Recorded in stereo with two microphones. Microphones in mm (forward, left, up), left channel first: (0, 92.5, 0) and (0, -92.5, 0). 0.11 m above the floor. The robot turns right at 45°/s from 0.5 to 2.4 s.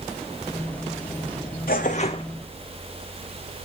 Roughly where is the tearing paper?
Left.